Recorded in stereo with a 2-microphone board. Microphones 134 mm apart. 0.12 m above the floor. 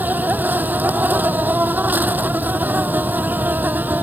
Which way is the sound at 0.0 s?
15° right (ahead or behind).